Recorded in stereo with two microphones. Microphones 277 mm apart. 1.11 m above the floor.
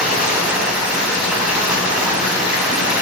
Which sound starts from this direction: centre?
Running water, at 0.0 s.